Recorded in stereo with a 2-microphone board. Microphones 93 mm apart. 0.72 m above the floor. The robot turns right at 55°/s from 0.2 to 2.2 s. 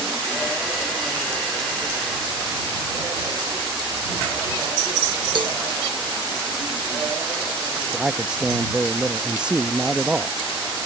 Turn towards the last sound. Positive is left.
turn(degrees=-10)  # may be behind; listen again after turning